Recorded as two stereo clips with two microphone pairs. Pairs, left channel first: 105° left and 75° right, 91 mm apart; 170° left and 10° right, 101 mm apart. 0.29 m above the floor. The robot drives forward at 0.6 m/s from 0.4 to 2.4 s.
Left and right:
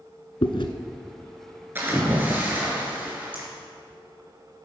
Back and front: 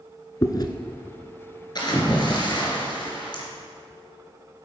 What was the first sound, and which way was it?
Chewing, 115° left.